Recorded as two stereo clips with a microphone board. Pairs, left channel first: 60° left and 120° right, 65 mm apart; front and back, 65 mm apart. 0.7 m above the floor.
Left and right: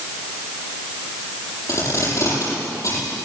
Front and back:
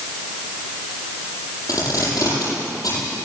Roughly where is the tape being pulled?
Ahead left.